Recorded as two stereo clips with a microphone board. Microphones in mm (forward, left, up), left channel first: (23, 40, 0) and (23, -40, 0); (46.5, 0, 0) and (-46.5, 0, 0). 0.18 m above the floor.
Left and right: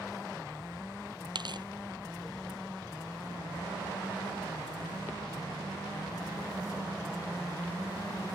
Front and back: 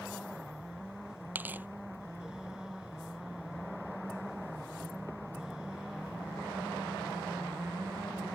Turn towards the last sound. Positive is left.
turn(degrees=-110)